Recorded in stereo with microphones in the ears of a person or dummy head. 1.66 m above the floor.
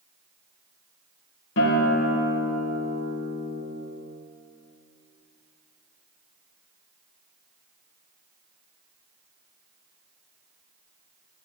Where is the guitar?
70° left (ahead or behind), 2.5 m.